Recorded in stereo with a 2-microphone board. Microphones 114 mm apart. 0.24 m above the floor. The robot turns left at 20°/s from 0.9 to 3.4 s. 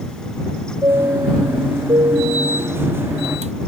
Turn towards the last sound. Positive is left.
turn(degrees=-85)